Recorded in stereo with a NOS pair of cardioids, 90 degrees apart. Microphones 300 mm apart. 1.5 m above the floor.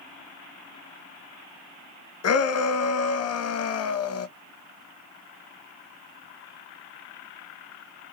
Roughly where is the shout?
Ahead left.